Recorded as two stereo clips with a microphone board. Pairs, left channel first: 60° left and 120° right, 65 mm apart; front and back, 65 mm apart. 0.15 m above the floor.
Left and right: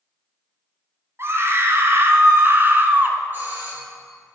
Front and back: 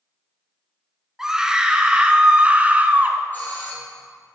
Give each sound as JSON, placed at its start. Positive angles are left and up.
{"t": 1.2, "sound": "a scream", "azimuth_deg": -100, "distance_m": 2.5}
{"t": 3.3, "sound": "a doorbell", "azimuth_deg": -65, "distance_m": 5.0}